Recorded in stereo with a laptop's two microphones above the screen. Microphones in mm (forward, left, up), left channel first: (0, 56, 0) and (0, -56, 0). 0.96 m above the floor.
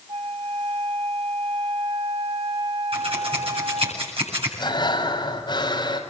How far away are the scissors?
About 8 m.